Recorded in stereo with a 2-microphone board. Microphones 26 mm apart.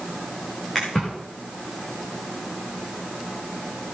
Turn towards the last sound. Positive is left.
turn(degrees=10)  # may be behind; listen again after turning